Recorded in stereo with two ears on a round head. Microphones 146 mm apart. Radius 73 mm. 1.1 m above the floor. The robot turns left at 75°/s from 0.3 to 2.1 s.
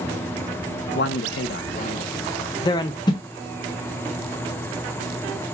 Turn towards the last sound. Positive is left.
turn(degrees=25)  # may be behind; listen again after turning